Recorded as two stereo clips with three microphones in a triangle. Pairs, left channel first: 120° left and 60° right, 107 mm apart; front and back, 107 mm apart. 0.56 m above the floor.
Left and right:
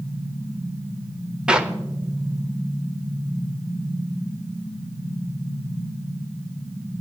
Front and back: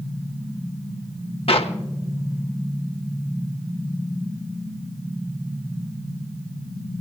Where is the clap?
20° left, 1.0 m.